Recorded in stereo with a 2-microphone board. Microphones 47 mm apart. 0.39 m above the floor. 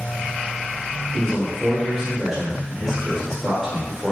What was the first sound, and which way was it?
A man speaking, centre (ahead or behind).